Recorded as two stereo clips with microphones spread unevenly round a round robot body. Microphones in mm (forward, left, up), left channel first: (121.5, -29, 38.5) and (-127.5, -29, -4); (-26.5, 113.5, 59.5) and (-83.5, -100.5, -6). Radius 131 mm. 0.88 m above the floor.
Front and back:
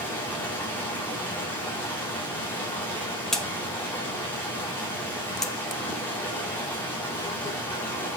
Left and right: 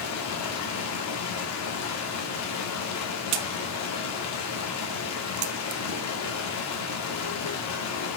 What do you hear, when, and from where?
0.0 s running water: 85° left, 1.8 m
3.3 s a crack: 85° right, 0.6 m